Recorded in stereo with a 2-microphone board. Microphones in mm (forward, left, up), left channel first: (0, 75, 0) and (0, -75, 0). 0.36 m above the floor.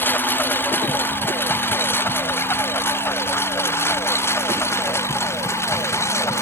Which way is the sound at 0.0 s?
10° left (ahead or behind).